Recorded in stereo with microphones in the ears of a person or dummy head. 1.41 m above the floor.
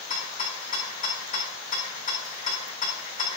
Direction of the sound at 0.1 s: 40° left (ahead or behind).